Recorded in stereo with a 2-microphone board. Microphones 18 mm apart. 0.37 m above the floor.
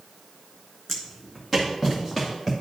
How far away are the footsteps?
About 1.5 m.